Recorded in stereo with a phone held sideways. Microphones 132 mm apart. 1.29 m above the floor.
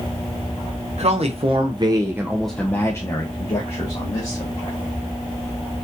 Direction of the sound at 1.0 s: 60° right (ahead or behind).